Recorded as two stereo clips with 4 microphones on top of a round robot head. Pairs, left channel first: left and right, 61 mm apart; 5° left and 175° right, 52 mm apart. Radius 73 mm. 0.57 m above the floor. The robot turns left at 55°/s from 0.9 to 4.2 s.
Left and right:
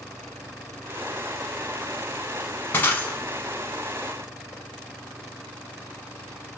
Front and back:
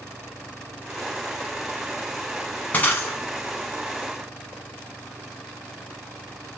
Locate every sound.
2.7 s breaking glass: 55° left, 0.5 m; by 3.2 s 30° left, 0.5 m